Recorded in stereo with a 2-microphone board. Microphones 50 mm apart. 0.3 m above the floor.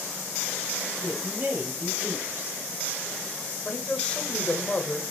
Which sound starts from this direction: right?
A woman speaking, at 1.0 s.